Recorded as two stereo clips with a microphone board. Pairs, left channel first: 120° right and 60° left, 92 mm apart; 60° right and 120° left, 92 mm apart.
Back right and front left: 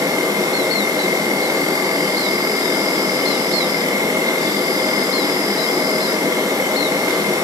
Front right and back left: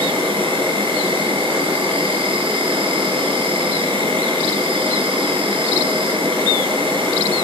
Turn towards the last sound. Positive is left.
turn(degrees=110)